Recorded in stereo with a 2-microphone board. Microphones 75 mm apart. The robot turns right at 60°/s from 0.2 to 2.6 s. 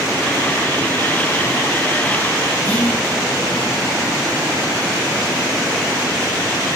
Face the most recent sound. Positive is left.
turn(degrees=20)  # may be behind; listen again after turning